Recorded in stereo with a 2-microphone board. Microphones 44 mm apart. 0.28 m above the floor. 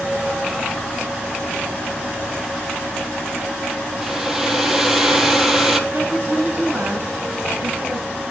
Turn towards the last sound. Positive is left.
turn(degrees=-40)  # may be behind; listen again after turning